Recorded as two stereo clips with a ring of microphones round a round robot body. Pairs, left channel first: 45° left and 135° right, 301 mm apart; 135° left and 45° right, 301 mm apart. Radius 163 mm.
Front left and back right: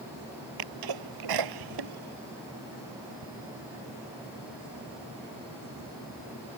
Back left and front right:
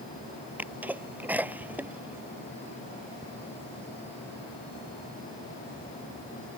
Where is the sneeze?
130° right.